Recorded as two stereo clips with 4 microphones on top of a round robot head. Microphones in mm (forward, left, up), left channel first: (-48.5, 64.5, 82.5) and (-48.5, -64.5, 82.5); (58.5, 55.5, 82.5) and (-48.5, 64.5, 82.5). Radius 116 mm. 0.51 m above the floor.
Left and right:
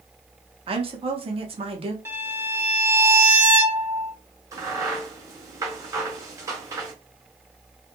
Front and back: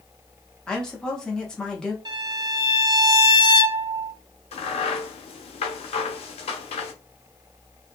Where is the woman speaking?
85° right, 0.9 m.